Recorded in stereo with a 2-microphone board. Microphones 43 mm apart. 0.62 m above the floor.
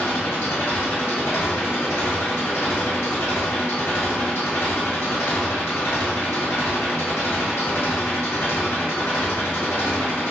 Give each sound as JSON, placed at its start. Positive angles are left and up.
{"t": 0.0, "sound": "an engine running", "side_deg": 80, "distance_m": 1.7}